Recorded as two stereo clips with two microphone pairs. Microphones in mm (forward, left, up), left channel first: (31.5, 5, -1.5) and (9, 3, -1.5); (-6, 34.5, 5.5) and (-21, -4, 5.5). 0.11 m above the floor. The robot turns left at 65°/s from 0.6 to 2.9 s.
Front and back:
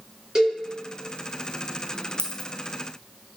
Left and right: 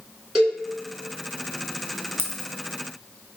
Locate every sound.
0.3 s a cowbell: 160° left, 1.7 m
2.2 s a dropped coin: 20° left, 0.6 m; by 2.5 s straight ahead, 0.6 m